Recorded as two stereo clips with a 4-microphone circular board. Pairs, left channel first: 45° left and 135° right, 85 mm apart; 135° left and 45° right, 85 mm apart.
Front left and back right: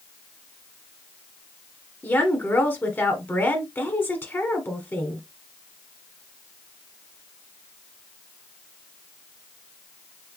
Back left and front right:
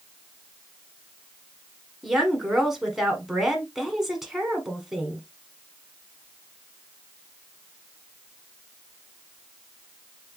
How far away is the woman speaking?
About 1.1 m.